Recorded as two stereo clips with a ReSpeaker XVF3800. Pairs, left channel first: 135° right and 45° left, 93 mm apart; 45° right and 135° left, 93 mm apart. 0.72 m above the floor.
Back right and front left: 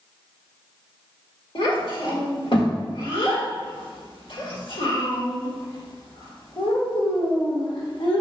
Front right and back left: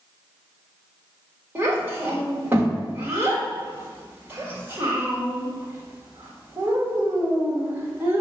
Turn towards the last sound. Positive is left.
turn(degrees=-155)